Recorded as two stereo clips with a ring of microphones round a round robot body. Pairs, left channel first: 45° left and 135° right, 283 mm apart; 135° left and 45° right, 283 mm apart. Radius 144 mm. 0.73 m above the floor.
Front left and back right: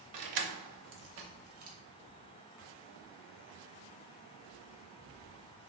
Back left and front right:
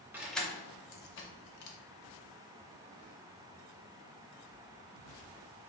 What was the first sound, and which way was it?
Keys jangling, 130° right.